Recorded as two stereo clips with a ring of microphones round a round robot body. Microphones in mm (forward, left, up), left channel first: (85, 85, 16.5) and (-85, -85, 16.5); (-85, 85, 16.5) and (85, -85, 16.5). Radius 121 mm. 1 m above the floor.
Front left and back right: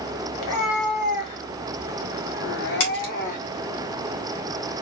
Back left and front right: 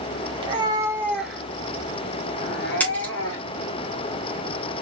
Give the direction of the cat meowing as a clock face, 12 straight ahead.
11 o'clock.